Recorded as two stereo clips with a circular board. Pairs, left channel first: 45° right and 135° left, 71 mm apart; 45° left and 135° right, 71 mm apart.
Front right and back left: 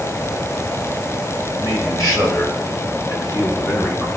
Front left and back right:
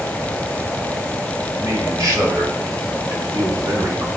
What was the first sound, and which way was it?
A man speaking, 90° right.